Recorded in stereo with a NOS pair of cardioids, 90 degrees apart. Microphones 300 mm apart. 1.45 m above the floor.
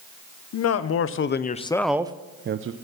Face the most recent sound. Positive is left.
turn(degrees=-45)